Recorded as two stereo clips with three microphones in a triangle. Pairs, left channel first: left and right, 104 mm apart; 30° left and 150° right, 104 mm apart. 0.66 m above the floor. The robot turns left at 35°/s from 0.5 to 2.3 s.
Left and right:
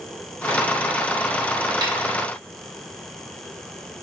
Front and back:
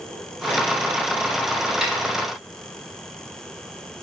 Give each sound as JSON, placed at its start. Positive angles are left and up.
{"t": 1.8, "sound": "a snare drum", "azimuth_deg": -65, "distance_m": 0.8}